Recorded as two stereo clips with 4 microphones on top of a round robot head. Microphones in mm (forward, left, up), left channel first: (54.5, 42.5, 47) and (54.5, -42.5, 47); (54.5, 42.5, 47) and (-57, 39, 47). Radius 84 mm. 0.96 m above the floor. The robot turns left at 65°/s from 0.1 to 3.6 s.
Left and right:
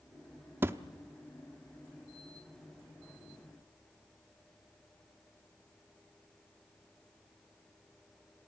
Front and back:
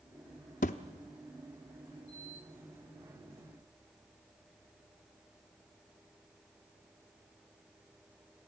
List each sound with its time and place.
0.6 s a thud: 35° right, 0.6 m; by 0.8 s 45° right, 0.6 m